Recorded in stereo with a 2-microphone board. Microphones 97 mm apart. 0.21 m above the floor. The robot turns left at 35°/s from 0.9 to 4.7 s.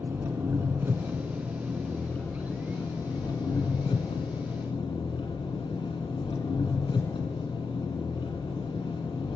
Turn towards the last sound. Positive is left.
turn(degrees=75)